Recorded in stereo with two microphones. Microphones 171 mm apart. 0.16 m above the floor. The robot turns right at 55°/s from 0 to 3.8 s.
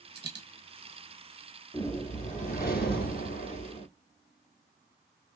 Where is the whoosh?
25° left, 0.9 m; by 3.9 s 140° left, 0.9 m.